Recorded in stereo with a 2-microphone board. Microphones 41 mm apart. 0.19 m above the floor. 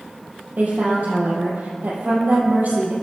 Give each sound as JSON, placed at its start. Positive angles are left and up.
{"t": 0.6, "sound": "a woman speaking", "side_deg": -45, "distance_m": 5.5}